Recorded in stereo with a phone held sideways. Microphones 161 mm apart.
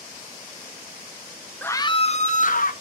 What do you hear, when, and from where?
1.6 s a scream: 10° left (ahead or behind), 0.5 m; by 2.7 s 60° left (ahead or behind), 1.1 m